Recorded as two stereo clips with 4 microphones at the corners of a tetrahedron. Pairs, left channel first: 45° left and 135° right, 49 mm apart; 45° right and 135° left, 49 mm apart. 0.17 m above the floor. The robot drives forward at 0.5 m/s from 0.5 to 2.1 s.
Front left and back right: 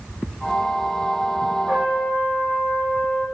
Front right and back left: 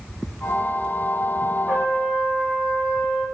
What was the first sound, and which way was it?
A trumpet, 175° left.